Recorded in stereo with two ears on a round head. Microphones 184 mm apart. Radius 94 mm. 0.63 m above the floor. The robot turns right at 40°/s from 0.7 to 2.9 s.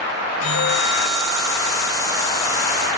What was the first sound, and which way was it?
A bell, 90° left.